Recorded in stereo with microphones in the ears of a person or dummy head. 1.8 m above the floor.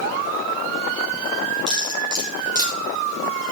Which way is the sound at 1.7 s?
20° right (ahead or behind).